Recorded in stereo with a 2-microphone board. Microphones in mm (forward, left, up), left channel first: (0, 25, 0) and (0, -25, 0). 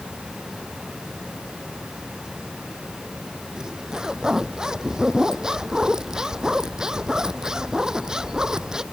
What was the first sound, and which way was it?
A zipper, 15° right (ahead or behind).